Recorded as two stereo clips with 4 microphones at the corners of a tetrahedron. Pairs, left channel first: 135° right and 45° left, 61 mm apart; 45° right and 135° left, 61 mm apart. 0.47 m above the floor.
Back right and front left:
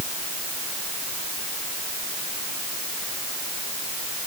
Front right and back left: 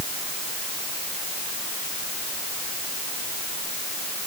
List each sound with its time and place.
Only background noise.